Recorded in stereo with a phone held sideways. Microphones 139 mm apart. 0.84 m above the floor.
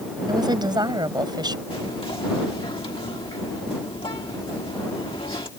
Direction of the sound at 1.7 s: 40° left (ahead or behind).